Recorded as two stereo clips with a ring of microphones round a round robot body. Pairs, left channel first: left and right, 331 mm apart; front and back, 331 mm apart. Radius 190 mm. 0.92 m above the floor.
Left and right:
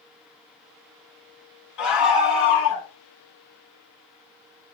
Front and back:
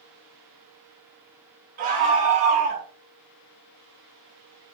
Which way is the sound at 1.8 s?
110° left.